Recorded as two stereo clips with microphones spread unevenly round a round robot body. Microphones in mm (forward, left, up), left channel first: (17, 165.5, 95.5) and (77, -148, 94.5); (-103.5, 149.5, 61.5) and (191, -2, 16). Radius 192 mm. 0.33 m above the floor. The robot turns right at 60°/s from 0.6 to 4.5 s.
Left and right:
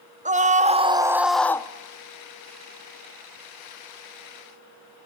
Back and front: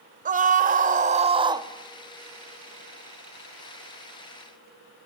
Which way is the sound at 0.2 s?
35° right.